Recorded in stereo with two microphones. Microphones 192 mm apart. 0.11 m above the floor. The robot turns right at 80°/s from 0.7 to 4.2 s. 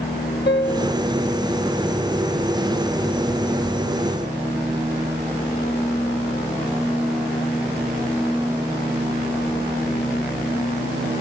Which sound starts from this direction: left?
A piano, at 0.5 s.